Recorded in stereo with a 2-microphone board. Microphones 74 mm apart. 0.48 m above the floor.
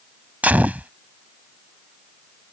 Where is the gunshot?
20° right (ahead or behind).